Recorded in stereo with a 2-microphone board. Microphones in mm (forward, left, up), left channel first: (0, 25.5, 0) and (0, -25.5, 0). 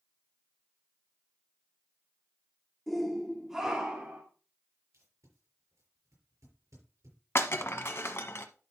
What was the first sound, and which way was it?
A shout, 5° left (ahead or behind).